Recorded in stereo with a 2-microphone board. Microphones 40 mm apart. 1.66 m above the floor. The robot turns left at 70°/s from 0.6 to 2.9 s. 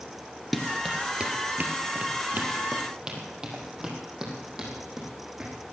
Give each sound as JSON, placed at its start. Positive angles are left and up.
{"t": 0.5, "sound": "running footsteps", "side_deg": 0, "distance_m": 1.7}